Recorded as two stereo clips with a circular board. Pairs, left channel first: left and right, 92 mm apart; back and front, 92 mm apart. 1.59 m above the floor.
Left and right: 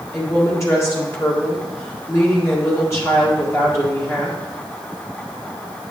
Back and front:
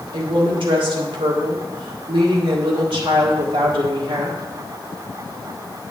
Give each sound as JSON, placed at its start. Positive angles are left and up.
{"t": 0.1, "sound": "a woman speaking", "azimuth_deg": 30, "distance_m": 1.7}